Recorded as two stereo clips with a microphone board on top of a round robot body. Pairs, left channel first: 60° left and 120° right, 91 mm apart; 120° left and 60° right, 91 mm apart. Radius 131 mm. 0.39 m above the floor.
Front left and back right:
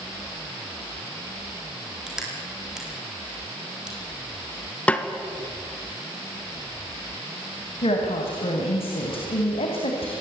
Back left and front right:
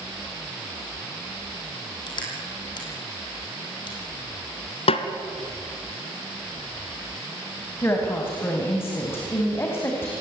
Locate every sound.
2.1 s crushing: 155° left, 4.5 m
4.9 s a snare drum: 135° left, 1.2 m
7.8 s a woman speaking: 55° left, 3.5 m